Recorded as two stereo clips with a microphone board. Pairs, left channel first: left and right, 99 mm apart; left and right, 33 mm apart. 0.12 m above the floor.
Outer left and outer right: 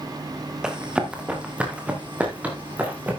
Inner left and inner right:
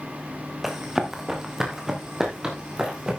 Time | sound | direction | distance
0.6 | running footsteps | 10° right (ahead or behind) | 2.5 m